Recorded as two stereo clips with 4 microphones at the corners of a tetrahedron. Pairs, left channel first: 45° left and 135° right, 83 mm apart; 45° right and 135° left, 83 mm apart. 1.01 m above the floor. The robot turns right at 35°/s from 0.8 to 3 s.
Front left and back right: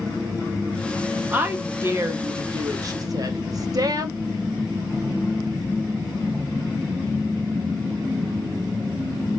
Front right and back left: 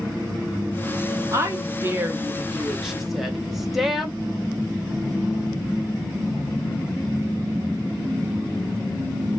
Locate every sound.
1.3 s a woman speaking: 160° left, 0.7 m; by 4.2 s 140° right, 0.7 m